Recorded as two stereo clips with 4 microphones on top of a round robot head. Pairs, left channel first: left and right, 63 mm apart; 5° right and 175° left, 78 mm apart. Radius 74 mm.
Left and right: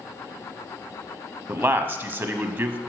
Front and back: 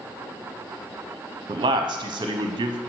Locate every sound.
1.5 s a man speaking: 145° right, 0.7 m